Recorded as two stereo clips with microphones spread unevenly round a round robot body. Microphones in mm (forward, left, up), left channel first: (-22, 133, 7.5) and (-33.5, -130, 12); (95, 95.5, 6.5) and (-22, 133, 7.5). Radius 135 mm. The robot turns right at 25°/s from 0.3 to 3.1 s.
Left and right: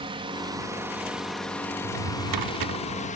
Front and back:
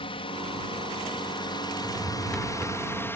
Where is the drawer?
115° right; by 2.8 s 90° right.